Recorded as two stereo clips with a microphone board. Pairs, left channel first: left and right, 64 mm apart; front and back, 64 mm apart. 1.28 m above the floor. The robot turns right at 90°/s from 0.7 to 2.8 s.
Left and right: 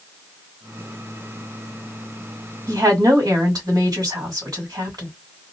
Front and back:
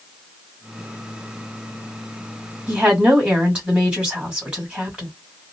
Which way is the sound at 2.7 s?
115° right.